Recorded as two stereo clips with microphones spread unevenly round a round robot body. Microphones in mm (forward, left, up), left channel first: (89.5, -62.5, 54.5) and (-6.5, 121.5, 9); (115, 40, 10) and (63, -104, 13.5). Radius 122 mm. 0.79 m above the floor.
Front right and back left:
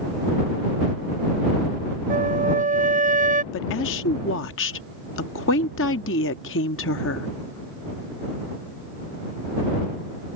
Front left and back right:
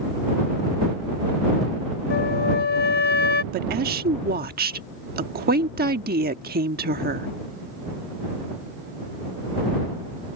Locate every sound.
2.1 s a flute: 60° left
3.5 s a woman speaking: 100° right